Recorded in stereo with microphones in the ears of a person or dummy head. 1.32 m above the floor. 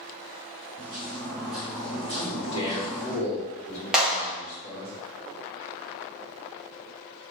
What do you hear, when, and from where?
0.8 s footsteps: 30° right (ahead or behind), 1.4 m; by 3.2 s 20° left (ahead or behind), 1.4 m
2.2 s a man speaking: 30° left (ahead or behind), 1.9 m
3.9 s a clap: 5° right (ahead or behind), 1.2 m